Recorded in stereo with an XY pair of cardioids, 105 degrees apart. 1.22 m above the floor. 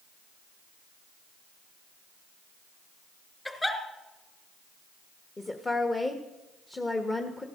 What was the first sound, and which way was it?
A giggle, 15° left.